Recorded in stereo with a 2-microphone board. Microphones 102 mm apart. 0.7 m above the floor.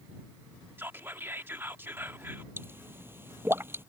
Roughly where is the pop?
Right.